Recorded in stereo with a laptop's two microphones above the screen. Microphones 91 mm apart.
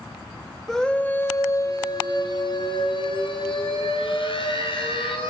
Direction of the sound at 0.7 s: Centre (ahead or behind).